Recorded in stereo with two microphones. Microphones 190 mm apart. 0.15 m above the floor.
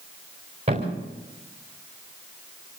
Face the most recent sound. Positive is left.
turn(degrees=-35)  # may be behind; listen again after turning